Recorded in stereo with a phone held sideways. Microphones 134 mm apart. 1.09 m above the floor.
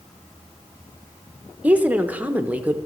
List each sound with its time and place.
1.6 s a woman speaking: 10° right (ahead or behind), 0.7 m